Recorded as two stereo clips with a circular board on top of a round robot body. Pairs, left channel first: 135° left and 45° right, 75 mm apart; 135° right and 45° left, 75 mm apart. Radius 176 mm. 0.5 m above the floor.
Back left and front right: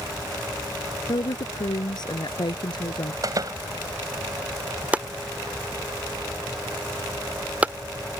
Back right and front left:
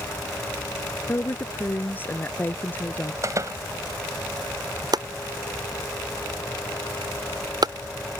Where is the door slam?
5° right.